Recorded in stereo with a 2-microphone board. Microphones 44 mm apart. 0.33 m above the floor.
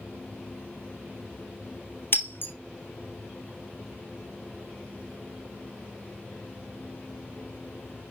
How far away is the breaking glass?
About 1.3 m.